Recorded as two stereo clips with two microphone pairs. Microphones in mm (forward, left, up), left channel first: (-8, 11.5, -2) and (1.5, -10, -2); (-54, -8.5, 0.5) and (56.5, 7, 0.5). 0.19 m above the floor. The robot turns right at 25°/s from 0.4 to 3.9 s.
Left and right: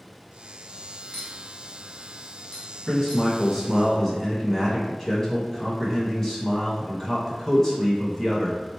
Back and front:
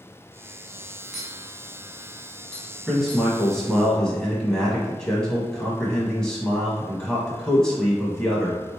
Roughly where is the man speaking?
Left.